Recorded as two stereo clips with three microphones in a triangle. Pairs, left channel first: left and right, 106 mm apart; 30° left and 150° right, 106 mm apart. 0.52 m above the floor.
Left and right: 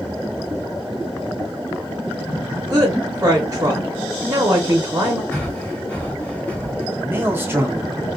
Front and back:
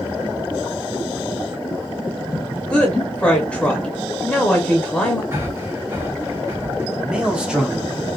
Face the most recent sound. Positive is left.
turn(degrees=-85)